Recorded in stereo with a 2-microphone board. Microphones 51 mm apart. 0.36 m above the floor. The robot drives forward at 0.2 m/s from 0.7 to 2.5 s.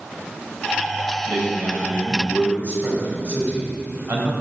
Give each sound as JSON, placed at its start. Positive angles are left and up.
{"t": 1.3, "sound": "a man speaking", "side_deg": -50, "distance_m": 1.4}